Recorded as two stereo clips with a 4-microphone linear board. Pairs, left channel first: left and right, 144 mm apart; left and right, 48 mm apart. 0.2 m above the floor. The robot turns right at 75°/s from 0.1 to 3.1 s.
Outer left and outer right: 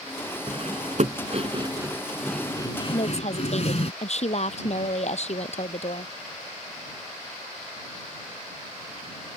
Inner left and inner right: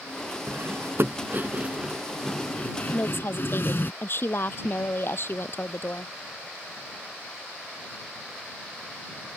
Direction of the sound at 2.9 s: 40° left (ahead or behind).